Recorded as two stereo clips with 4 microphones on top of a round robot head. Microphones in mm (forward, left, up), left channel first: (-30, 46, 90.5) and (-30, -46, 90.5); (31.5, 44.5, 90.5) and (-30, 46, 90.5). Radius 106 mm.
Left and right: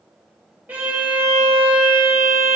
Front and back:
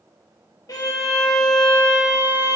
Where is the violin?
15° right, 1.9 m.